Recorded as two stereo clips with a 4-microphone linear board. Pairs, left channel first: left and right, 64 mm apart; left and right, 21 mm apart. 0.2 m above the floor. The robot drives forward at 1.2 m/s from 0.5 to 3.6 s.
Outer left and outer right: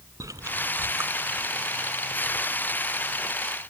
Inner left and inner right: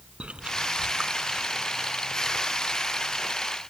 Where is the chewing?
65° right (ahead or behind), 0.7 m; by 3.4 s 10° right (ahead or behind), 3.5 m.